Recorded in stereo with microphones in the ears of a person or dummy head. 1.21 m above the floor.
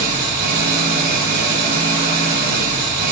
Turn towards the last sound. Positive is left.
turn(degrees=-50)  # may be behind; listen again after turning